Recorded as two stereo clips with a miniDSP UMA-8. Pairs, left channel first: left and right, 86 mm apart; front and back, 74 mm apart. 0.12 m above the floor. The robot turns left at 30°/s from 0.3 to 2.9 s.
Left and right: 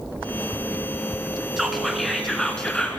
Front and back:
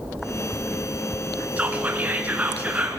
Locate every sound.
1.6 s whispering: 170° right, 1.5 m; by 3.0 s 150° left, 1.5 m